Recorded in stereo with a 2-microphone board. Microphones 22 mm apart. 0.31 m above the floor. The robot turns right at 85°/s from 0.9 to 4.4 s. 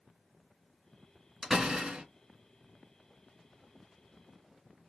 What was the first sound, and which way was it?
A door slam, 150° right.